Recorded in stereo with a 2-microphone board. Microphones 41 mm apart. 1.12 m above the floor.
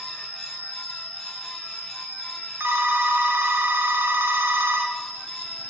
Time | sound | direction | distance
0.0 | an insect | 25° left (ahead or behind) | 3 m
2.6 | a phone ringing | 75° right (ahead or behind) | 0.6 m